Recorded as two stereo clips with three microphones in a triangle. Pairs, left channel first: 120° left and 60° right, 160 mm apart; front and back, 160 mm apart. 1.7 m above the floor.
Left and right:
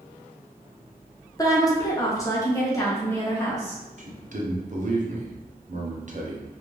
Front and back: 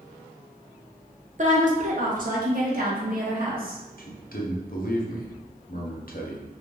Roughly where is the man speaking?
Ahead.